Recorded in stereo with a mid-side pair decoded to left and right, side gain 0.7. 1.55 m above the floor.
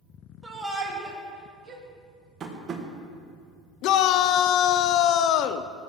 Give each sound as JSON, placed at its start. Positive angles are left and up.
{"t": 0.4, "sound": "a shout", "azimuth_deg": -15, "distance_m": 2.5}
{"t": 2.4, "sound": "tapping", "azimuth_deg": -30, "distance_m": 1.6}
{"t": 3.8, "sound": "a shout", "azimuth_deg": 60, "distance_m": 0.6}